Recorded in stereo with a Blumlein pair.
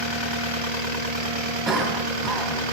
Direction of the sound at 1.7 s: 20° right.